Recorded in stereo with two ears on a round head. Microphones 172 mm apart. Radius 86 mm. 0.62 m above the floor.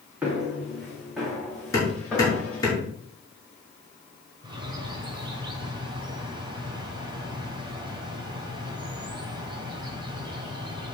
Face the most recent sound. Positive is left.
turn(degrees=-25)  # may be behind; listen again after turning